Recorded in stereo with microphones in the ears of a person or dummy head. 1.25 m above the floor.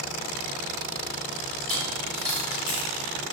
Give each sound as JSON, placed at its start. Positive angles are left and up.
{"t": 1.6, "sound": "a dropped coin", "side_deg": 30, "distance_m": 1.4}